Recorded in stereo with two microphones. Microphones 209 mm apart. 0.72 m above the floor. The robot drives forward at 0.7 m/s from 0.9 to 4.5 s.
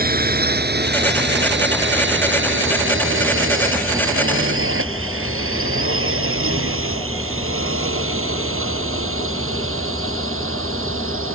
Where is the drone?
45° right (ahead or behind); by 11.3 s 85° right.